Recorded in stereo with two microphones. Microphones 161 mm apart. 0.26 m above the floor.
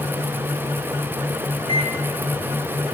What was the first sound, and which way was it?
A microwave, 35° right (ahead or behind).